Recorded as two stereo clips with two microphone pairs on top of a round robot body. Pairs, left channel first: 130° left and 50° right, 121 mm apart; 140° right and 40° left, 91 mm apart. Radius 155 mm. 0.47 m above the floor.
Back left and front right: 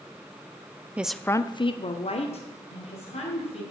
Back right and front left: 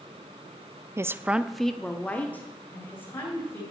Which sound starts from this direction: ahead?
A woman speaking, at 1.0 s.